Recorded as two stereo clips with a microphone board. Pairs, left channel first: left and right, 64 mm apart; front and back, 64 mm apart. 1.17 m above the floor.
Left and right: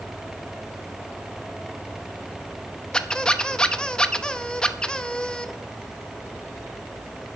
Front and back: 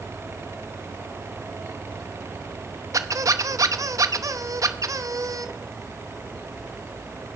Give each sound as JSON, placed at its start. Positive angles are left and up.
{"t": 2.9, "sound": "a squeak", "azimuth_deg": 165, "distance_m": 0.7}